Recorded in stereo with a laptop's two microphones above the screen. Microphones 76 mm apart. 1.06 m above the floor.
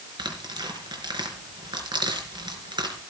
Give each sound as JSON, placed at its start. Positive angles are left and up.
{"t": 0.2, "sound": "tearing paper", "side_deg": -80, "distance_m": 4.0}